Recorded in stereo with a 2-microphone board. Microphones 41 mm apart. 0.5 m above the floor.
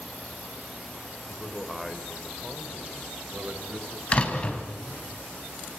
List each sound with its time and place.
1.3 s a man speaking: 10° left (ahead or behind), 2.5 m; by 4.6 s 70° right (ahead or behind), 4 m
4.1 s a door slam: 35° left (ahead or behind), 3 m